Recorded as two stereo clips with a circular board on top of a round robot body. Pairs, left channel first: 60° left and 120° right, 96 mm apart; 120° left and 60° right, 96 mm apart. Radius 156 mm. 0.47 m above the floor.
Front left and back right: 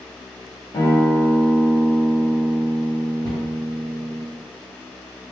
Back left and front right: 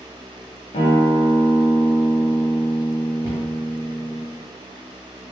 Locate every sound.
0.7 s a guitar: 115° left, 1.0 m
3.2 s a cupboard door: 5° left, 1.9 m